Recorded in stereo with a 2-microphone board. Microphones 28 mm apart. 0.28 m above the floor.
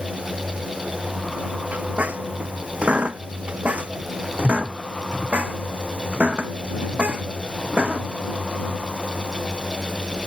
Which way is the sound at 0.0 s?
80° right.